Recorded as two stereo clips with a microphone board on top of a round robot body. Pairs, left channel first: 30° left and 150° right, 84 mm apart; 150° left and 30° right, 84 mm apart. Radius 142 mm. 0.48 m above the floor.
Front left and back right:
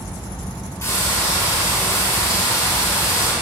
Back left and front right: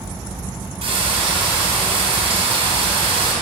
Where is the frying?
25° right, 2.5 m.